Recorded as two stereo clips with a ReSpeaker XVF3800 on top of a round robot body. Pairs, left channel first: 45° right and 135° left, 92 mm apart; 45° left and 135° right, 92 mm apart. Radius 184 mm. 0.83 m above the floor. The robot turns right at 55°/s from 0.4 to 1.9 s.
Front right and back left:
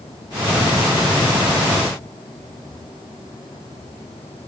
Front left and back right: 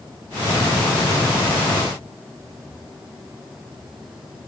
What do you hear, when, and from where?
Only background noise.